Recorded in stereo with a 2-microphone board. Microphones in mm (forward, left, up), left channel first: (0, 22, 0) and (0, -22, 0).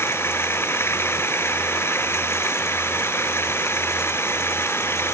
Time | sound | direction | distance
0.0 | running water | 75° left (ahead or behind) | ?